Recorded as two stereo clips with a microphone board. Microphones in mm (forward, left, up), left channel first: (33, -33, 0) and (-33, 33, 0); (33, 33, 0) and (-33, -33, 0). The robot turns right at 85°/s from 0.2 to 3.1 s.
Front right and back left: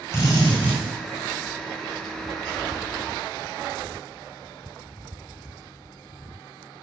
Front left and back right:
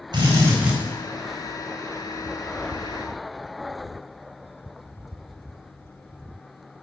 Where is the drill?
105° right, 4 m; by 0.8 s 50° right, 4 m.